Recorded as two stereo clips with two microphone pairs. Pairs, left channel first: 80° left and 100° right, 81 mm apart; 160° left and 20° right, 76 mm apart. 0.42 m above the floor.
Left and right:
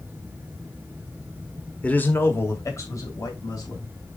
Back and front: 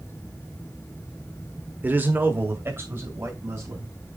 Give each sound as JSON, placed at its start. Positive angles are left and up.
{"t": 1.8, "sound": "a man speaking", "azimuth_deg": 20, "distance_m": 1.3}